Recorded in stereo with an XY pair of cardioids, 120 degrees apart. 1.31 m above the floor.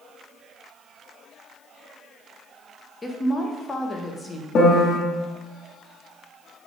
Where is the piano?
50° left, 1.5 m.